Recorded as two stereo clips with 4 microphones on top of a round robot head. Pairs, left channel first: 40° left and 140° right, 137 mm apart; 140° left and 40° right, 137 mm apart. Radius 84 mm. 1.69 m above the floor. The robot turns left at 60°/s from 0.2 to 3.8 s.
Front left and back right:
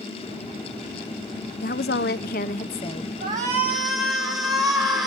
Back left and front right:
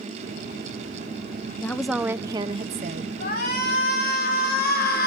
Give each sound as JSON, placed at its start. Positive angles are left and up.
{"t": 1.6, "sound": "a woman speaking", "azimuth_deg": 65, "distance_m": 0.7}
{"t": 3.2, "sound": "a shout", "azimuth_deg": 165, "distance_m": 5.5}